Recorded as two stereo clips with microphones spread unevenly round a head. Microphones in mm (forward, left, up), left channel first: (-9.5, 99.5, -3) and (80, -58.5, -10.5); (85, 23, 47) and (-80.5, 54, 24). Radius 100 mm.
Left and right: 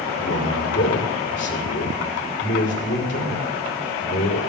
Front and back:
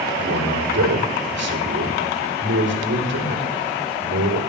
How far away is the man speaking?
About 4.5 m.